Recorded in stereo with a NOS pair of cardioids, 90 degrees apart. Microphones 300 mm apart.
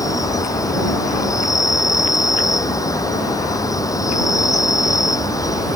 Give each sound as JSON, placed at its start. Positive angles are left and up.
{"t": 0.0, "sound": "an insect", "azimuth_deg": 10}